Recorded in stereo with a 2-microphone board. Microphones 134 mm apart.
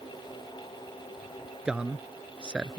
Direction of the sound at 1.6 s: 5° right (ahead or behind).